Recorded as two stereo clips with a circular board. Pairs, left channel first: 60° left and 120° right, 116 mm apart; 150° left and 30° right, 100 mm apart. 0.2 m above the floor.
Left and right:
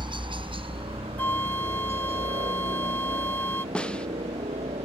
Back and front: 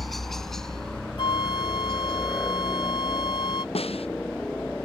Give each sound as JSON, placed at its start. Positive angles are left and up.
{"t": 0.0, "sound": "a helicopter", "azimuth_deg": -120}
{"t": 1.2, "sound": "a flute", "azimuth_deg": 130}
{"t": 3.8, "sound": "a snare drum", "azimuth_deg": 140}